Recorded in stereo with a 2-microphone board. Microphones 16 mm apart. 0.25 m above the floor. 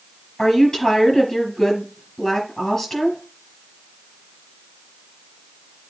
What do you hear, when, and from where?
0.4 s a woman speaking: 25° left (ahead or behind), 5 m